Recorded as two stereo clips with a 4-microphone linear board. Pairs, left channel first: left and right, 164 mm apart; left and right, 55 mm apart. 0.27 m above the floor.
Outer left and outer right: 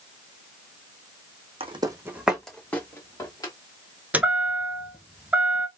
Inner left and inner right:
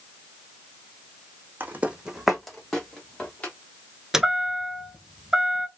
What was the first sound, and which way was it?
Footsteps, 35° right (ahead or behind).